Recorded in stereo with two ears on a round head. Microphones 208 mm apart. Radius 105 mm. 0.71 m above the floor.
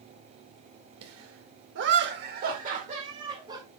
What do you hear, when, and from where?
1.0 s laughter: 70° right (ahead or behind), 2 m; by 3.6 s 20° right (ahead or behind), 2.5 m